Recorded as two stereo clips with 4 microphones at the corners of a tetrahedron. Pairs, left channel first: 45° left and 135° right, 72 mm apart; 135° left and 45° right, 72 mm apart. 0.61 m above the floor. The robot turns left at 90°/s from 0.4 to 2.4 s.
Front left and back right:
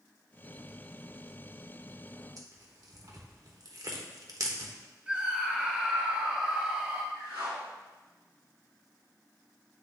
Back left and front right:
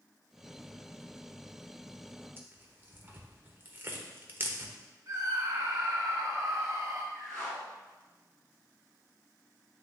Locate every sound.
2.4 s tearing paper: 100° right, 1.0 m; by 4.7 s 105° right, 1.0 m
5.1 s a scream: 65° right, 0.8 m
7.1 s a whoosh: 145° right, 2.5 m